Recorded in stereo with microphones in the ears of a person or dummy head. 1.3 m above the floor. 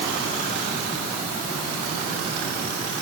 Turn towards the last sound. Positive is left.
No sound to turn to.